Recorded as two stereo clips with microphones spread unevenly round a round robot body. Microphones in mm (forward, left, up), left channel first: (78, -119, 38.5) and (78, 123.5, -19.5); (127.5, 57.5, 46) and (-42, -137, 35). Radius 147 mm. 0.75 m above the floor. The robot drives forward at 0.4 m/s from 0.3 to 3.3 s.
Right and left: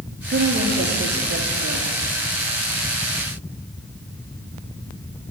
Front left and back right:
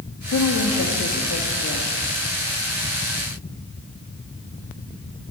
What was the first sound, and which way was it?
A woman speaking, 65° left.